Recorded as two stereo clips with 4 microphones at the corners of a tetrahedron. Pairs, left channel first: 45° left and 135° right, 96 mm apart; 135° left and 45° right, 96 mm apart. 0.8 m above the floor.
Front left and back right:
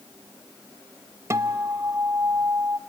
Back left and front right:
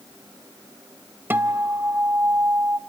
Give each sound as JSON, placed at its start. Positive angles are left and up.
{"t": 1.3, "sound": "a guitar", "azimuth_deg": -105, "distance_m": 0.7}